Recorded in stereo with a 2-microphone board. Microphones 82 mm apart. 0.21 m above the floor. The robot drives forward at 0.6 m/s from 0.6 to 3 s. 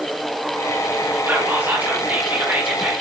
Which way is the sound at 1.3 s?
25° right (ahead or behind).